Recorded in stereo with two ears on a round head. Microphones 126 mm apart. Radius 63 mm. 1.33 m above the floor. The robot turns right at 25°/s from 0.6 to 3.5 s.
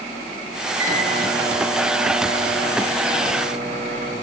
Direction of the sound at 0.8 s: 125° right.